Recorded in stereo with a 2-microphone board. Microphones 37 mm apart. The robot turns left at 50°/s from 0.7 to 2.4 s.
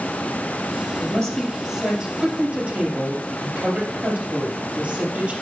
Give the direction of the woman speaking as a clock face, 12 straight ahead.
11 o'clock.